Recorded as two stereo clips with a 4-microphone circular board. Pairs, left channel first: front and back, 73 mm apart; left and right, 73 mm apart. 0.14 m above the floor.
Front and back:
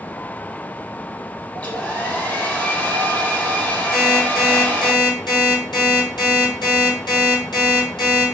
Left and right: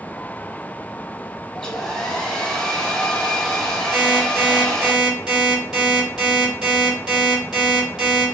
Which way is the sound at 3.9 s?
10° right.